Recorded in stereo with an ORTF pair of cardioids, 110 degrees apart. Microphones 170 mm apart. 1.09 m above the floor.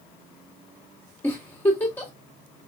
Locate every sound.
1.2 s a giggle: 10° left, 2.5 m